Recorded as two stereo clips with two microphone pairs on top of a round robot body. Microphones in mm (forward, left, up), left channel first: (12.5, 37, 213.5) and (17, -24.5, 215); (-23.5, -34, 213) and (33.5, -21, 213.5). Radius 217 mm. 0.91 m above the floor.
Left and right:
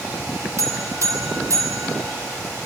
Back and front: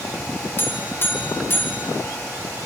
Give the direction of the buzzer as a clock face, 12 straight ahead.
4 o'clock.